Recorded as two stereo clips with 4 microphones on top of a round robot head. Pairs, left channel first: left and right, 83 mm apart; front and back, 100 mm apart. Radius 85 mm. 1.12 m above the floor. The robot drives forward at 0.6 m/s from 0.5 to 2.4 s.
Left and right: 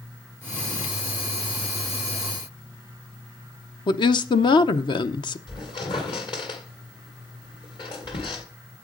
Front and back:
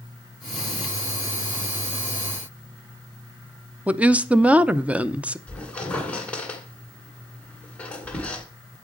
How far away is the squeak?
About 1.8 m.